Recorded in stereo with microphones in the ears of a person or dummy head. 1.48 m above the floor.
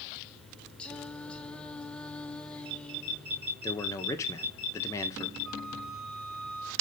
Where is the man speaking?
15° left (ahead or behind), 1.9 m.